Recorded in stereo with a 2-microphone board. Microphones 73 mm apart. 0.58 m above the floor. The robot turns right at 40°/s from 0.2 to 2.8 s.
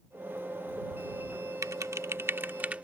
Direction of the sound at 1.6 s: 50° right (ahead or behind).